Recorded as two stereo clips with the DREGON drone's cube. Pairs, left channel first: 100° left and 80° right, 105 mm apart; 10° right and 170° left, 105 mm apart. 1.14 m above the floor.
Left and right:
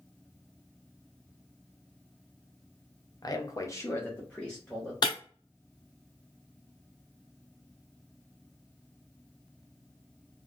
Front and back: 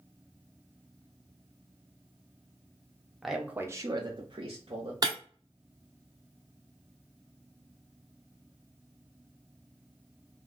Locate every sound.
3.2 s a man speaking: 80° left, 0.6 m; by 4.9 s 175° right, 0.9 m
5.0 s breaking glass: 135° left, 1.0 m